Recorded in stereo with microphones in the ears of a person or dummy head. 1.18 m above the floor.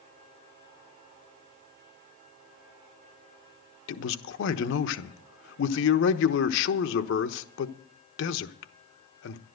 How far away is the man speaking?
About 1.1 m.